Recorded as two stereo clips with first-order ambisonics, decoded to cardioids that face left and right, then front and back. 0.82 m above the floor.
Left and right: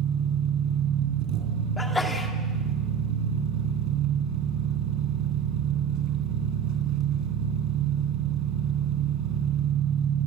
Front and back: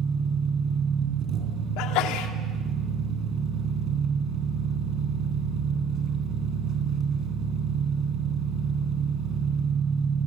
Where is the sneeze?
10° left, 2.0 m.